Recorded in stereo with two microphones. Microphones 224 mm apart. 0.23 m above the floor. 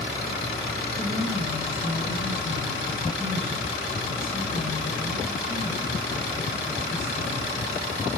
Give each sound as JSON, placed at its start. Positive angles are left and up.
{"t": 1.0, "sound": "a woman speaking", "side_deg": 65, "distance_m": 6.5}